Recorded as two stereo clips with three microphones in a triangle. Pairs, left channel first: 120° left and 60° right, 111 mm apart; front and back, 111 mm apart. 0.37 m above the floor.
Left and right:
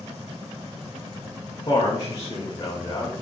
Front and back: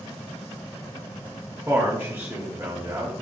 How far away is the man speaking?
About 1.0 m.